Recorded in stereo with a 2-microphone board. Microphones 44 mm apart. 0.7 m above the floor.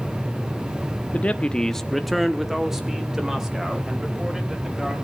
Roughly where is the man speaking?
Left.